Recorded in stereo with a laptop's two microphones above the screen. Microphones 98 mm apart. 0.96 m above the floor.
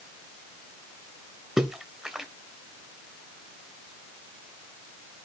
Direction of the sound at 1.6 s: 5° right (ahead or behind).